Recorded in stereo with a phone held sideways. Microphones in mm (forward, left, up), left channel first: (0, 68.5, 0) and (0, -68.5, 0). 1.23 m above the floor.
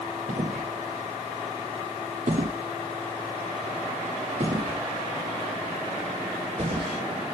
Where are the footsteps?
75° right (ahead or behind), 6 m; by 7.0 s 40° right (ahead or behind), 8.5 m.